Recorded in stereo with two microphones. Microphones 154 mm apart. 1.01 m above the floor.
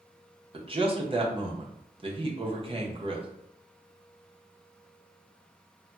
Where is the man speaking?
35° right (ahead or behind), 0.7 m.